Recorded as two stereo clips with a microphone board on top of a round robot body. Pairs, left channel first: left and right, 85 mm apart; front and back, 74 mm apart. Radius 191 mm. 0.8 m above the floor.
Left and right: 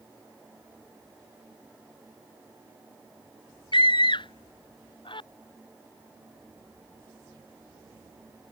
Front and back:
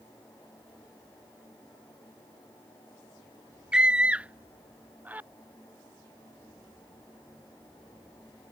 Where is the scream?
100° left; by 5.3 s 110° left.